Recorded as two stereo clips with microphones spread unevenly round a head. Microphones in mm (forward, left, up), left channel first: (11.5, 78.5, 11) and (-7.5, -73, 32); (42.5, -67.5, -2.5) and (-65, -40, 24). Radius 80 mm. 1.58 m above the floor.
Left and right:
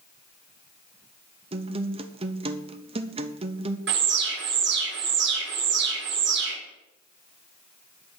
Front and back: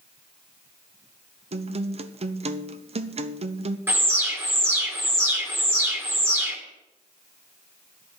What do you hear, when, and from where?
1.5 s a guitar: 155° right, 0.9 m
3.9 s an alarm: 120° right, 2.5 m